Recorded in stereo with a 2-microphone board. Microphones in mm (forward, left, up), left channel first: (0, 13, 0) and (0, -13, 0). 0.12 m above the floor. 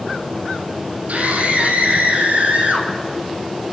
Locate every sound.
1.1 s a scream: 70° right (ahead or behind), 4 m; by 2.9 s 75° right (ahead or behind), 5.5 m